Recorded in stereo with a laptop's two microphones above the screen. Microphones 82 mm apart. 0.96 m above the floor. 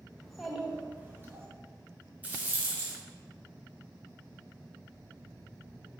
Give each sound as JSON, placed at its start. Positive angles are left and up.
{"t": 0.2, "sound": "a child speaking", "side_deg": 5, "distance_m": 1.0}
{"t": 2.2, "sound": "a rattle", "side_deg": -20, "distance_m": 0.8}